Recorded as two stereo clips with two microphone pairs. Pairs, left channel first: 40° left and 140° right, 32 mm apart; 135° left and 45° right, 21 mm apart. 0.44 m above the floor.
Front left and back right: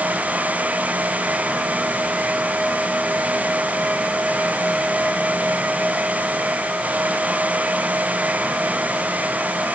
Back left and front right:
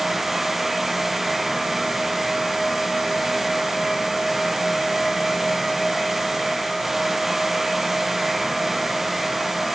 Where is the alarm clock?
I don't hear an alarm clock.